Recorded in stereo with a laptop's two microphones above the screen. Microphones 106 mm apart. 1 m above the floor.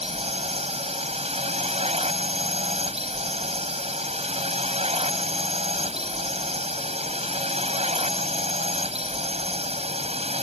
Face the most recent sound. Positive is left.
turn(degrees=-65)  # may be behind; listen again after turning